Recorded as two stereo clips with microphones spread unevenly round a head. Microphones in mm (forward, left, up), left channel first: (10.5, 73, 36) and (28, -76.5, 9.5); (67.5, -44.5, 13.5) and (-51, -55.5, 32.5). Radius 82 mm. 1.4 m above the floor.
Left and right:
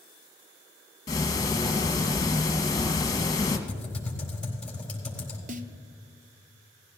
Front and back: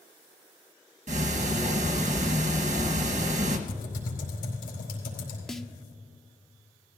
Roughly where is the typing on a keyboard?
Ahead.